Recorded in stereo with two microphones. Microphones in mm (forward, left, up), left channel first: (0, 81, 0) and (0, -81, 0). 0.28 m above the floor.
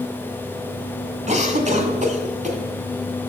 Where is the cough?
50° right (ahead or behind), 2 m.